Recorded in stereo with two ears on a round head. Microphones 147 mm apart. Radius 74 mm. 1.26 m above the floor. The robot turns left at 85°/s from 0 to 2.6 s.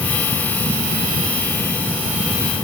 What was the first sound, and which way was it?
Only background noise.